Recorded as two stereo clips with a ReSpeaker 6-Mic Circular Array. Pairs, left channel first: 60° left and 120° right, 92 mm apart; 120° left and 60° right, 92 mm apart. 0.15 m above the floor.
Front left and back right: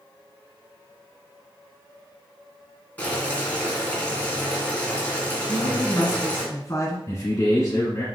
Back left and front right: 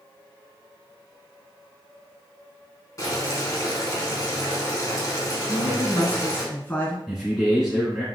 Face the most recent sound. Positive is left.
turn(degrees=30)